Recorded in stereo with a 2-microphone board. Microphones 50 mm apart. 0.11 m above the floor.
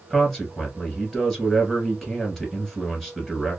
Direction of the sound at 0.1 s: Centre (ahead or behind).